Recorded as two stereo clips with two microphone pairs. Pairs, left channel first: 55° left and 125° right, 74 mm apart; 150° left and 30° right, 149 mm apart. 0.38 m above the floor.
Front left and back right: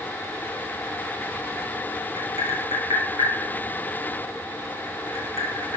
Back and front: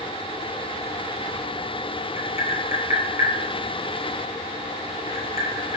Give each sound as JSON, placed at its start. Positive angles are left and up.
{"t": 2.2, "sound": "tapping", "azimuth_deg": -170, "distance_m": 1.8}